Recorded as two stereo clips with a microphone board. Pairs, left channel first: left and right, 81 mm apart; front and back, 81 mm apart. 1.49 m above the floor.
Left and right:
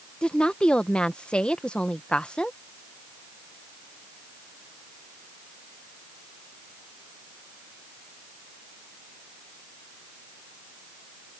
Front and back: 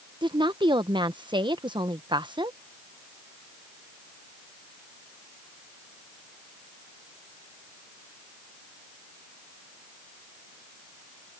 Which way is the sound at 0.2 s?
170° left.